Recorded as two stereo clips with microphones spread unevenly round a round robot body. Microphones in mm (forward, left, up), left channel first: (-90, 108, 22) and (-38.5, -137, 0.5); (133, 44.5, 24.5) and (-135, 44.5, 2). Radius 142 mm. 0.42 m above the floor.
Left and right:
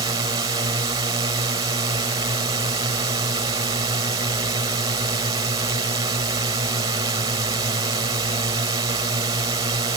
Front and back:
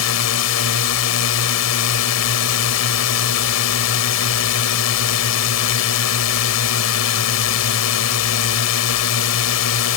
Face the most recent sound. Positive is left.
turn(degrees=-5)